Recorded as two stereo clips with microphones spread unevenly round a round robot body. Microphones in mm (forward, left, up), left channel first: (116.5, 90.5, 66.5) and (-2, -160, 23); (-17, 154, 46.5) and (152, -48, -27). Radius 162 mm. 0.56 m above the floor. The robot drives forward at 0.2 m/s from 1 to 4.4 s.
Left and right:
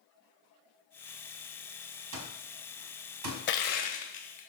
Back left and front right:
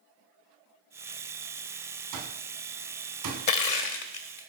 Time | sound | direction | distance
2.1 | an alarm clock | 85° right | 1.6 m
3.5 | crushing | 120° left | 0.7 m